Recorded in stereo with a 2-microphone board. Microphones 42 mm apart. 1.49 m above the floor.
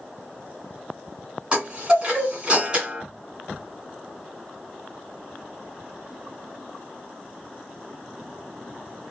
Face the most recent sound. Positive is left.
turn(degrees=-25)  # may be behind; listen again after turning